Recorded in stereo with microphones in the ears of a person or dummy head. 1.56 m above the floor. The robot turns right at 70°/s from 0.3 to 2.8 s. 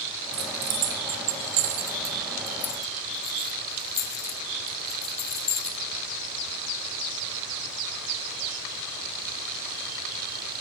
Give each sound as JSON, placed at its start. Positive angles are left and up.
{"t": 0.3, "sound": "keys jangling", "side_deg": -25, "distance_m": 0.9}